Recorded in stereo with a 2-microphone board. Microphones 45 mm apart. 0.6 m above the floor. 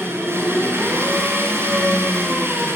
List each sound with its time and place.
0.0 s an engine running: 60° right (ahead or behind), 7.5 m